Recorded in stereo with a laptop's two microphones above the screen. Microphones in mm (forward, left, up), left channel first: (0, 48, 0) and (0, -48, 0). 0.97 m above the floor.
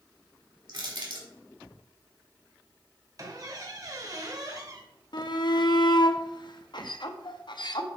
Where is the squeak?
40° right (ahead or behind), 0.9 m.